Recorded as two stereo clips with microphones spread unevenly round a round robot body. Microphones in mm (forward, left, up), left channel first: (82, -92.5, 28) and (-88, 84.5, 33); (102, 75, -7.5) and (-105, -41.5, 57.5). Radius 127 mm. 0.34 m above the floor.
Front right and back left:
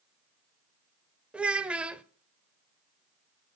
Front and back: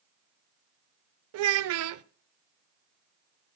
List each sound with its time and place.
1.3 s a child speaking: 140° right, 0.5 m